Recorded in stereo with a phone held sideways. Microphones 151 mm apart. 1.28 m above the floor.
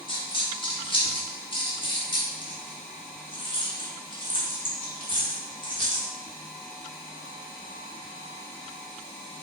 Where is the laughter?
No laughter in this recording.